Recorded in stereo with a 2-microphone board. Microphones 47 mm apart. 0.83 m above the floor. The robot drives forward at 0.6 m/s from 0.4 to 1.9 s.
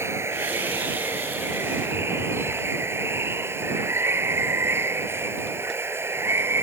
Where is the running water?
70° right (ahead or behind); by 6.6 s 60° right (ahead or behind).